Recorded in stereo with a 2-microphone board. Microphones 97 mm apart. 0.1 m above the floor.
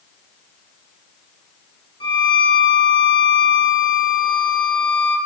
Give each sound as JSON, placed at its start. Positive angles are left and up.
{"t": 2.0, "sound": "a violin", "side_deg": 60, "distance_m": 0.6}